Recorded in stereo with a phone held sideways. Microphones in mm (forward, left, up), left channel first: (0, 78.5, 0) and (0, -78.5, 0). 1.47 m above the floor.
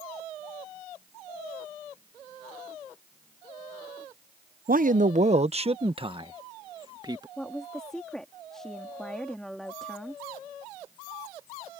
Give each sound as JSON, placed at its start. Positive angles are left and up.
{"t": 4.7, "sound": "a man speaking", "side_deg": -65}
{"t": 7.4, "sound": "a woman speaking", "side_deg": 5}